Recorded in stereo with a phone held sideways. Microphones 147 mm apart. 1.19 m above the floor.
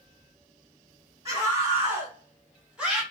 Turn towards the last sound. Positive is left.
turn(degrees=-5)  # may be behind; listen again after turning